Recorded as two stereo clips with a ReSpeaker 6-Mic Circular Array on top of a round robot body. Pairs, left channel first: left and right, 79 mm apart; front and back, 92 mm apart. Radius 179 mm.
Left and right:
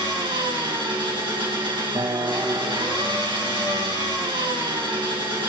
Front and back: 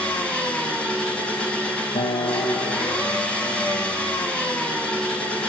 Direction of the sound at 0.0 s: 80° right.